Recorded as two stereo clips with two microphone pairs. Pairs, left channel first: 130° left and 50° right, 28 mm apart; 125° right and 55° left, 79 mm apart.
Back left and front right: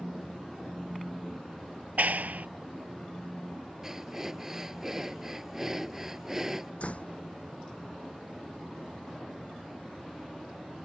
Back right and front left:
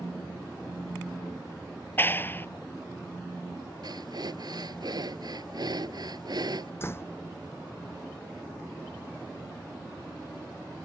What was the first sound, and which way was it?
A clap, 65° right.